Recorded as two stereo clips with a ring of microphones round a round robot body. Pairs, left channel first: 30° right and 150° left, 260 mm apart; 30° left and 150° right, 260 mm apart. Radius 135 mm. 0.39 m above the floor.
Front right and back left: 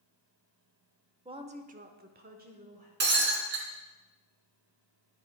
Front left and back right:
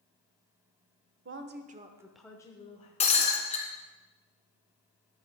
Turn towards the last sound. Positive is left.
turn(degrees=95)